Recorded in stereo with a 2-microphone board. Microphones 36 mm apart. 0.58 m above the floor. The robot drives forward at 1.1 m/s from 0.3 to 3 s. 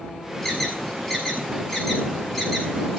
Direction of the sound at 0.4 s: 10° left (ahead or behind).